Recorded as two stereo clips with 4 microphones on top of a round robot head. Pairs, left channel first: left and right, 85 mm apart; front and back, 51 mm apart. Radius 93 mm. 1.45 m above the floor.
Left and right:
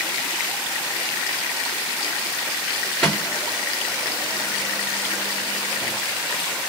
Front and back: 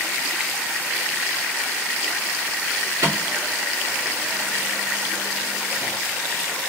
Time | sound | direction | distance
3.0 | a microwave | 175° left | 2.5 m